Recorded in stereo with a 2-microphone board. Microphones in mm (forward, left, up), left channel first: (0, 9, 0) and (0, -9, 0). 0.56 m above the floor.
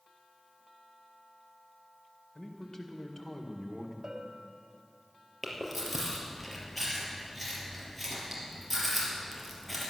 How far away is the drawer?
I don't hear a drawer.